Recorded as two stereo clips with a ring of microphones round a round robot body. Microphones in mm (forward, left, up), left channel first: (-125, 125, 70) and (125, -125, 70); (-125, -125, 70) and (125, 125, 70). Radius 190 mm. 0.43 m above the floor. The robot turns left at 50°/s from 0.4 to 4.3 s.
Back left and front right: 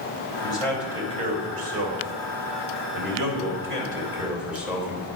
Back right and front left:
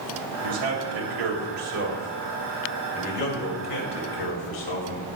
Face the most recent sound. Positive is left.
turn(degrees=-130)